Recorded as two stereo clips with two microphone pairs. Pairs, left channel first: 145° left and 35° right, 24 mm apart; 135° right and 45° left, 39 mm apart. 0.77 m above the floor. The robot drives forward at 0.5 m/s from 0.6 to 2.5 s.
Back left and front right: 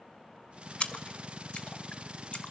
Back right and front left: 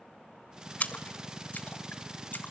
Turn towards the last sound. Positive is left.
turn(degrees=180)